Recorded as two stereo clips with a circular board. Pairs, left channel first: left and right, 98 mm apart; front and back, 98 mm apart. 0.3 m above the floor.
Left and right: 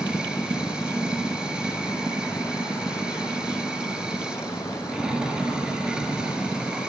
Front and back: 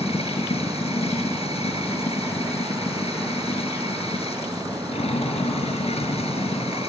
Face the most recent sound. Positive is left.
turn(degrees=-10)